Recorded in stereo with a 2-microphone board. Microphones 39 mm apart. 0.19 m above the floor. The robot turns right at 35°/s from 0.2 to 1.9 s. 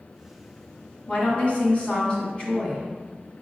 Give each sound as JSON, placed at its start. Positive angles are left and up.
{"t": 1.1, "sound": "a woman speaking", "side_deg": 35, "distance_m": 1.4}